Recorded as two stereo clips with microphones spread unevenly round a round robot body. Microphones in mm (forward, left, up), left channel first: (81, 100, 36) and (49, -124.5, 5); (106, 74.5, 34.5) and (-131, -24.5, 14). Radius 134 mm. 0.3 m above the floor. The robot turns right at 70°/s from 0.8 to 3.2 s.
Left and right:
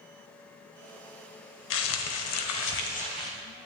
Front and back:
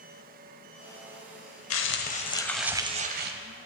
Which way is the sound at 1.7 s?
55° left.